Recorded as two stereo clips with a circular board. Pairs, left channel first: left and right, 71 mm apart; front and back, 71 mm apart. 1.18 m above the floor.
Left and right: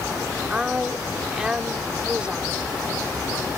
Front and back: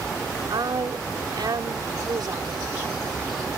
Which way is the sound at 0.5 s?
170° right.